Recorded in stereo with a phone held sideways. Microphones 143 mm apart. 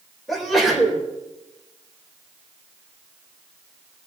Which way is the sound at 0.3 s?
Centre (ahead or behind).